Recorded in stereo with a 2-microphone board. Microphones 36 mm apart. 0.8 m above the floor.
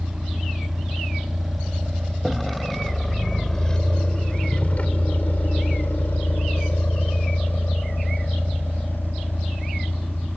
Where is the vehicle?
10° right (ahead or behind); by 10.4 s 55° left (ahead or behind).